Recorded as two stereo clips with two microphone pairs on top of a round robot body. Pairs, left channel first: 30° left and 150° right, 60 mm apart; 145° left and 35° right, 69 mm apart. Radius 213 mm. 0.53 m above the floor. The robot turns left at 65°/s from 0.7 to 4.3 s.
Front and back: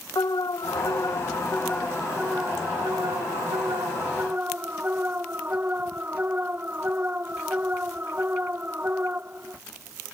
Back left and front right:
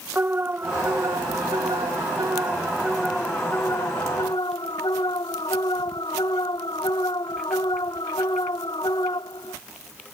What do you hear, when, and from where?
0.1 s an alarm: 25° left; by 9.6 s 150° left